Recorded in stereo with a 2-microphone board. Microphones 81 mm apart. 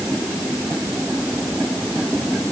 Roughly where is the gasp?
No gasp in this recording.